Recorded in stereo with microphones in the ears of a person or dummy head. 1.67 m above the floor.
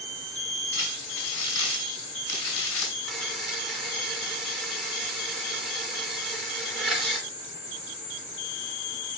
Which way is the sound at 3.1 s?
5° left (ahead or behind).